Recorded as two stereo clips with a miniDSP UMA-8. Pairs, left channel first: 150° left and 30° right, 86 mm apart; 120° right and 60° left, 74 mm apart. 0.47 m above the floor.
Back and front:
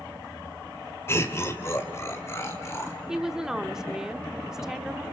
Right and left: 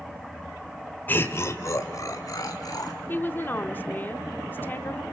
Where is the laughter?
170° right, 1.6 m; by 3.0 s 150° right, 4 m.